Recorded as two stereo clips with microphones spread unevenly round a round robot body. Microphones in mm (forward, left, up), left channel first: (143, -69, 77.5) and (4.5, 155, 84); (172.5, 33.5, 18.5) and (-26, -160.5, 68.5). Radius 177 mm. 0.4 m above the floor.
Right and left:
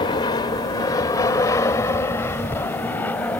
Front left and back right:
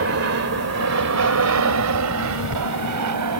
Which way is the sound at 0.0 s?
125° right.